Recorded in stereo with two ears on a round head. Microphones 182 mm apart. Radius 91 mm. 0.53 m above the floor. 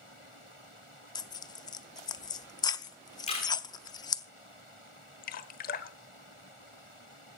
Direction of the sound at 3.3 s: 35° left (ahead or behind).